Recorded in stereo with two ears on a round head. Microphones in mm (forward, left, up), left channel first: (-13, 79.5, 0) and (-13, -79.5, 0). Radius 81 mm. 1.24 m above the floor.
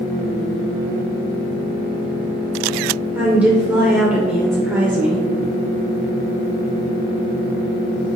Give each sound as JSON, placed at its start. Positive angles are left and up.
{"t": 3.1, "sound": "a woman speaking", "side_deg": -10, "distance_m": 0.6}